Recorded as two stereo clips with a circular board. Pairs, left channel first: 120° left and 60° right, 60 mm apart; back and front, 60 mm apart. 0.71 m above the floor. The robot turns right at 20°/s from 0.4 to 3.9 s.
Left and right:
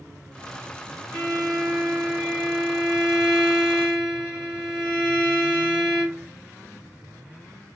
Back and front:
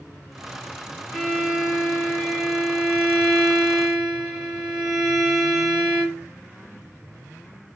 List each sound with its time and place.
1.1 s a violin: 90° right, 2.0 m; by 6.3 s 35° right, 2.0 m